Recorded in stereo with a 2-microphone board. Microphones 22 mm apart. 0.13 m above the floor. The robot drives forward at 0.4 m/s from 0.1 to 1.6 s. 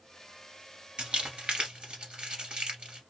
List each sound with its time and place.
1.0 s crumpling: 45° right (ahead or behind), 1.9 m; by 3.0 s 40° right (ahead or behind), 2 m